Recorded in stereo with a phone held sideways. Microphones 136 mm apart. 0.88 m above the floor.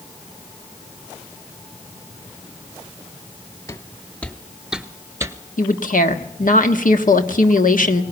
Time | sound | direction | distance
3.7 | footsteps | 25° left (ahead or behind) | 1.2 m
5.6 | a woman speaking | 80° left | 1.3 m